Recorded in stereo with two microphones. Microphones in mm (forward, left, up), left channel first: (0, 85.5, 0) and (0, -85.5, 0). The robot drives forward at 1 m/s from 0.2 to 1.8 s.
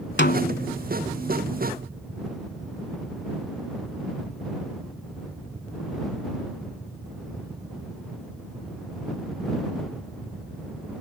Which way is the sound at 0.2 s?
70° left (ahead or behind).